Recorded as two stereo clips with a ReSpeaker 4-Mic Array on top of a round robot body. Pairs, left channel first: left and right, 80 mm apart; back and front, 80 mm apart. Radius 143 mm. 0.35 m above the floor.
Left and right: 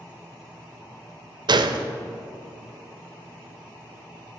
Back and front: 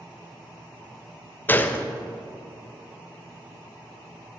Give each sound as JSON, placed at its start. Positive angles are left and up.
{"t": 1.5, "sound": "a gunshot", "azimuth_deg": -115, "distance_m": 0.7}